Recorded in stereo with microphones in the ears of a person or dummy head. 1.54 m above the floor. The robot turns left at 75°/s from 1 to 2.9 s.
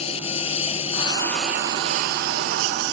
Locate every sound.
0.0 s a lawn mower: 30° left; by 2.9 s 110° right